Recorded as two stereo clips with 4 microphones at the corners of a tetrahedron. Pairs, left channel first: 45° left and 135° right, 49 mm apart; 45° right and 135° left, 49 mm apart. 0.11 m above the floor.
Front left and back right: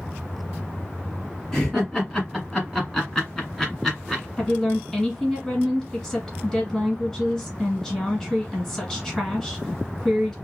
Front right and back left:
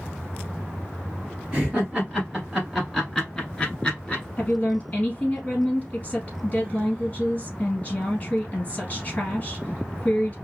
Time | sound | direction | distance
1.5 | laughter | 120° left | 1.8 m
4.4 | a woman speaking | 20° right | 1.8 m